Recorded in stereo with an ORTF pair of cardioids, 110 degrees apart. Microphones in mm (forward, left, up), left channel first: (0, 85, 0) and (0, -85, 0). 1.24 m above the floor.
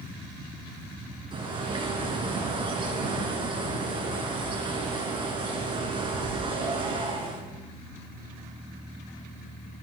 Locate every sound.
1.3 s a bird: 30° right, 3 m